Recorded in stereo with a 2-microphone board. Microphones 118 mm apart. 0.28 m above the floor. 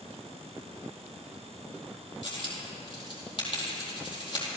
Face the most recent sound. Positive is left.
turn(degrees=45)  # may be behind; listen again after turning